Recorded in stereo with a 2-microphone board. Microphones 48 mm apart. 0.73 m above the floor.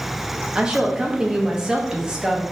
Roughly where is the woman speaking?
Centre.